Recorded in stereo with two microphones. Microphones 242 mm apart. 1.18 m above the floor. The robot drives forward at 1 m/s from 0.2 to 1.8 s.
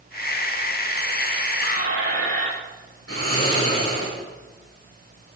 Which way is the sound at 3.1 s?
70° left (ahead or behind).